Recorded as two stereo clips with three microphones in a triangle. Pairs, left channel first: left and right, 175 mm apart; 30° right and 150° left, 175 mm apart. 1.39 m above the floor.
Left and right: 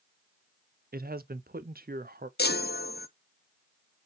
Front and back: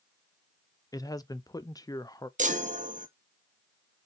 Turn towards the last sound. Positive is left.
turn(degrees=110)